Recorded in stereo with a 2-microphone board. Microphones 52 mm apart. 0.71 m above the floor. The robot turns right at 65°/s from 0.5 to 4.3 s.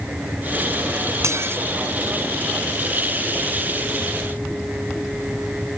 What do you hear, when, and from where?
1.2 s dishes clattering: 70° right (ahead or behind); by 1.6 s 40° right (ahead or behind)